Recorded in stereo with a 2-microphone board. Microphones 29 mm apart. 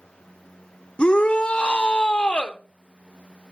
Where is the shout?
40° left (ahead or behind), 1.0 m.